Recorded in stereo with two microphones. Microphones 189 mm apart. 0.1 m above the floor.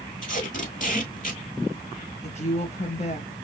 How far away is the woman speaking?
About 1.8 m.